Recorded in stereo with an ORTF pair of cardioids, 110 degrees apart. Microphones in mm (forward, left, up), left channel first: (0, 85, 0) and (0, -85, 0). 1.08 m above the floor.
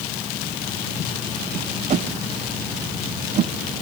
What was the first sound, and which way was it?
A whoosh, 45° right.